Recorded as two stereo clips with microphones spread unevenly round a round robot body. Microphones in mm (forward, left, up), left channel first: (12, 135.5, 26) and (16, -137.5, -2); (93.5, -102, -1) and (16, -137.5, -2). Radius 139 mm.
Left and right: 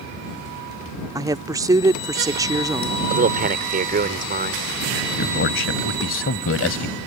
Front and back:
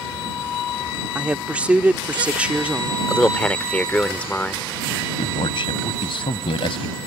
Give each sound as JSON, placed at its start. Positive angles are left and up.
{"t": 1.1, "sound": "a woman speaking", "azimuth_deg": -115}
{"t": 3.1, "sound": "a man speaking", "azimuth_deg": -45}
{"t": 5.0, "sound": "a man speaking", "azimuth_deg": 45}